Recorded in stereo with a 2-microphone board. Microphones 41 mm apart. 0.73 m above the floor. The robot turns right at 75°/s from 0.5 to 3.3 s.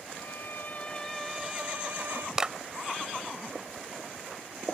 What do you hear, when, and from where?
0.1 s a violin: 120° left; by 2.3 s 105° right
2.4 s a clap: 15° right (ahead or behind); by 2.5 s 30° right (ahead or behind)